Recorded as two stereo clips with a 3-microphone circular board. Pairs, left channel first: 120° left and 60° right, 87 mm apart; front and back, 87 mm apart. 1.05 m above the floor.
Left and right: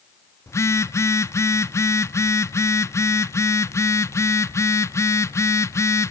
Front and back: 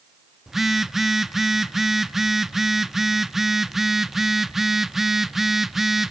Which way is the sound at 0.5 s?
95° left.